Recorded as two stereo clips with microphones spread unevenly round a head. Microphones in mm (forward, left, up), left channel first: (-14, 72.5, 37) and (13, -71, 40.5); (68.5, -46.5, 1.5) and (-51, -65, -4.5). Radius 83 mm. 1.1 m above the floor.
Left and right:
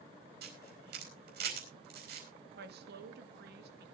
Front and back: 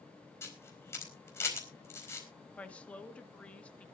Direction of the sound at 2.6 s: 70° right.